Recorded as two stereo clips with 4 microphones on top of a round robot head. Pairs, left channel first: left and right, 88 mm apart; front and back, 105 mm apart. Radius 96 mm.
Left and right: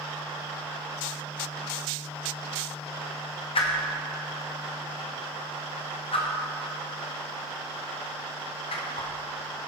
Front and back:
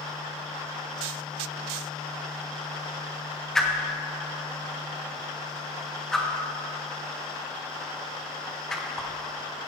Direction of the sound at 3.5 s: 85° left.